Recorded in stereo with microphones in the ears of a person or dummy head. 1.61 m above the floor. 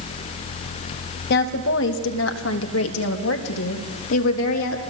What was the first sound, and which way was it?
A woman speaking, 60° left (ahead or behind).